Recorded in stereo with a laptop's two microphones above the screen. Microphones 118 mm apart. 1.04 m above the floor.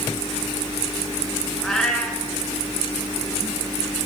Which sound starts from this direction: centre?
A cat meowing, at 1.6 s.